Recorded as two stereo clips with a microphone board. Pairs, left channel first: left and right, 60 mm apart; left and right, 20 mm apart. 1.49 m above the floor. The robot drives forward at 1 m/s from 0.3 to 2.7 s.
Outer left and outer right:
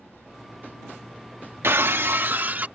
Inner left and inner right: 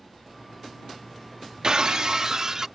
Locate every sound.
1.6 s breaking glass: 45° right (ahead or behind); by 2.7 s 30° right (ahead or behind)